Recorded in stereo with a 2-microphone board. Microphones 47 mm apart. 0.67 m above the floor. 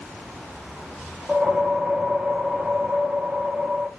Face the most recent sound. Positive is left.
turn(degrees=-20)  # may be behind; listen again after turning